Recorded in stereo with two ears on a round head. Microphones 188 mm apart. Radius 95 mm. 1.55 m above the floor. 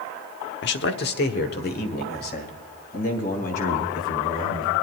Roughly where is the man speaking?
Left.